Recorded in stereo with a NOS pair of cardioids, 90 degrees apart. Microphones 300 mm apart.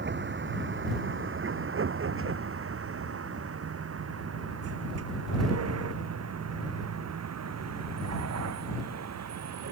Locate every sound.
0.0 s a vehicle: 40° right; by 9.7 s 60° right